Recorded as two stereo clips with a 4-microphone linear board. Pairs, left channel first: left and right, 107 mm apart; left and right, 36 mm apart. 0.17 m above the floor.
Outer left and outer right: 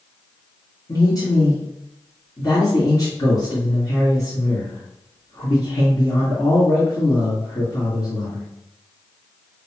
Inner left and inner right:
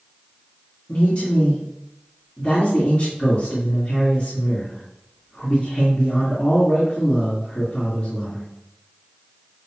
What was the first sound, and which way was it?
A man speaking, 35° left (ahead or behind).